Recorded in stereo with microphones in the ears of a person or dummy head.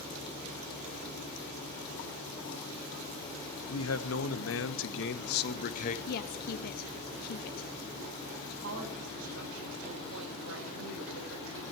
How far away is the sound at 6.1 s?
About 0.9 m.